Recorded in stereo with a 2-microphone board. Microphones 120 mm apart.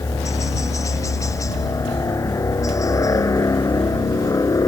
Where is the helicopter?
25° left (ahead or behind); by 4.7 s 30° left (ahead or behind).